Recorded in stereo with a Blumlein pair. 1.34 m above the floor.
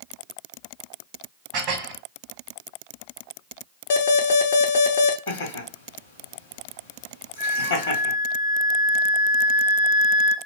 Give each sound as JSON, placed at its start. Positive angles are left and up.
{"t": 1.5, "sound": "dishes clattering", "azimuth_deg": -40, "distance_m": 1.0}
{"t": 3.9, "sound": "an alarm", "azimuth_deg": 55, "distance_m": 0.5}
{"t": 5.3, "sound": "laughter", "azimuth_deg": 55, "distance_m": 0.8}
{"t": 7.4, "sound": "a flute", "azimuth_deg": -50, "distance_m": 0.8}